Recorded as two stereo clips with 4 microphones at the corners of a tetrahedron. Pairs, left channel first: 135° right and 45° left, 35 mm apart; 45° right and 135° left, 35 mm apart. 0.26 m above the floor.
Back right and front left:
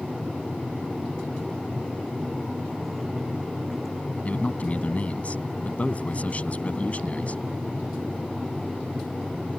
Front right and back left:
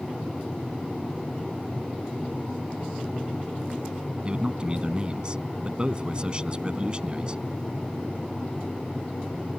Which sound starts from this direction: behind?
A man speaking, at 4.2 s.